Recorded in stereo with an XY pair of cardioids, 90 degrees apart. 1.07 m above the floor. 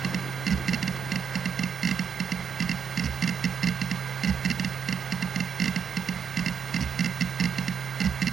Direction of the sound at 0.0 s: 45° right.